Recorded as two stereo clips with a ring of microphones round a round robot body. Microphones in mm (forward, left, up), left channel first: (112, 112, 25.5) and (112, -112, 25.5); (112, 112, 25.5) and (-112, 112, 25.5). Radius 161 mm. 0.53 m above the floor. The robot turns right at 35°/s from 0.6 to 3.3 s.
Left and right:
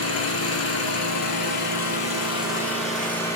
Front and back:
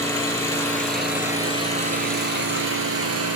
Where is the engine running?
80° left, 3.5 m; by 3.4 s 175° left, 3.5 m.